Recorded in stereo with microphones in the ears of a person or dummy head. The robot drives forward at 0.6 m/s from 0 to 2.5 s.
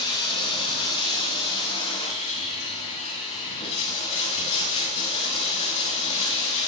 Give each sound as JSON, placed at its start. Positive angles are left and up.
{"t": 0.0, "sound": "running water", "side_deg": 30, "distance_m": 7.0}